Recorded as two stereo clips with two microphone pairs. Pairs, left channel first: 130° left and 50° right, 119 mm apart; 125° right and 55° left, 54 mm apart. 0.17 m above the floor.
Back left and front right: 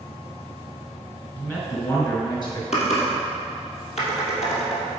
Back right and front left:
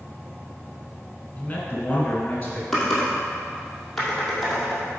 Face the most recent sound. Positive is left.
turn(degrees=155)